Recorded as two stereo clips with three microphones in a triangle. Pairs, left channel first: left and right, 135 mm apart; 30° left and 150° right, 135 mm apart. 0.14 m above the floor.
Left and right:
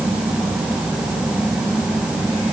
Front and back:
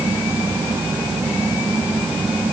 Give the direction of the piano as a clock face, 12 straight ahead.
I don't hear a piano.